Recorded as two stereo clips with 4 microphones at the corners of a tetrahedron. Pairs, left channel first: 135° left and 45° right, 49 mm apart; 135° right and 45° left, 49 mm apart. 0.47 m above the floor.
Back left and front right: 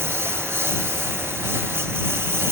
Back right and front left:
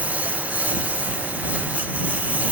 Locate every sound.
0.0 s a lawn mower: 10° right